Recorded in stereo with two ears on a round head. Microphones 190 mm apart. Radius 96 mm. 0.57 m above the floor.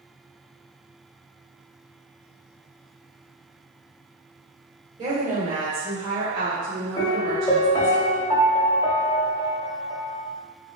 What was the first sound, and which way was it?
A woman speaking, 30° right (ahead or behind).